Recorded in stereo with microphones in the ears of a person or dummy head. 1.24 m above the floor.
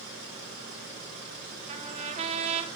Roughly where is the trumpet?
Right.